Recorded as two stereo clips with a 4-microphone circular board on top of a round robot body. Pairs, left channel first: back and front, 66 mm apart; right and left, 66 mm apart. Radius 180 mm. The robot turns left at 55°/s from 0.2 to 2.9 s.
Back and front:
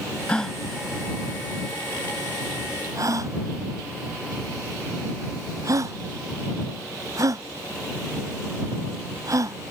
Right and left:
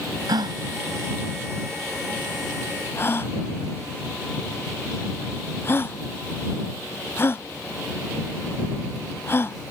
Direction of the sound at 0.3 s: 105° left.